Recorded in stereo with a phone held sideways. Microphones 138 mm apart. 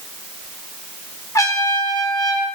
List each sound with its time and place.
1.4 s a trumpet: 25° left (ahead or behind), 0.9 m